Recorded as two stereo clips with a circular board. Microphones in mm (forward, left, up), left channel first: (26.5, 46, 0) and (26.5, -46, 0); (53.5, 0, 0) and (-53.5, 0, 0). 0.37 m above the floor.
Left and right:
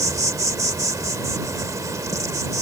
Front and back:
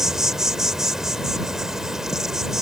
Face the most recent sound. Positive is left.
turn(degrees=-95)